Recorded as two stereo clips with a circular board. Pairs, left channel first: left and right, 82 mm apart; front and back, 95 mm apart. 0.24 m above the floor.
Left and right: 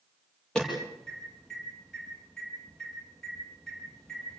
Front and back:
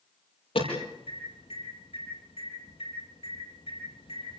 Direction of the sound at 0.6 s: 10° left.